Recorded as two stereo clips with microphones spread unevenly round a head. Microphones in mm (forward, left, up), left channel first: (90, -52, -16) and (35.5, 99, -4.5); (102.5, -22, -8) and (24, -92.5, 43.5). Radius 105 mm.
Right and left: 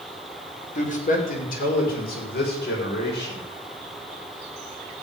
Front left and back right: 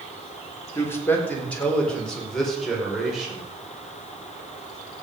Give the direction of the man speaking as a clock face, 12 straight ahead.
1 o'clock.